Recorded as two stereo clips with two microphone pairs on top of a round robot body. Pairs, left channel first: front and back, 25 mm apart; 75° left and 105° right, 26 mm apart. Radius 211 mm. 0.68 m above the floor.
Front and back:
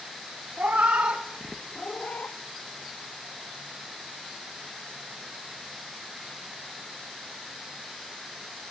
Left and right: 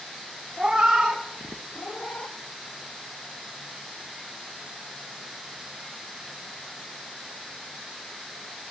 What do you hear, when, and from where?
0.6 s a cat meowing: straight behind, 1.0 m; by 2.4 s 20° left, 1.0 m